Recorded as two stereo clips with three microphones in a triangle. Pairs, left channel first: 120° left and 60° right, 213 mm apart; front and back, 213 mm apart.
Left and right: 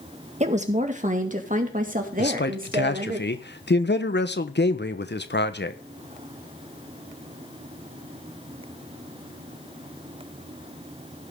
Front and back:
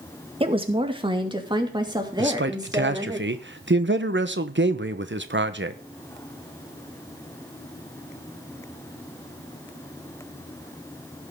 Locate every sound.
0.4 s a woman speaking: 120° right, 1.8 m; by 3.2 s 105° right, 3 m
2.2 s a man speaking: 155° left, 1.1 m